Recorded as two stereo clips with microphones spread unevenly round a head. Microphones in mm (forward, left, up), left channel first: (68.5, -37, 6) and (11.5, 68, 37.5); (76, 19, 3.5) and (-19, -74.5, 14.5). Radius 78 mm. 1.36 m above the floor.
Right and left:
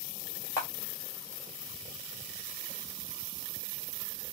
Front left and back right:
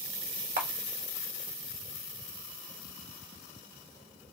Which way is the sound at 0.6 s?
140° right.